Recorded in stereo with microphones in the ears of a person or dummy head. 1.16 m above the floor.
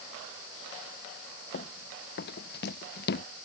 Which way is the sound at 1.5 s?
45° left (ahead or behind).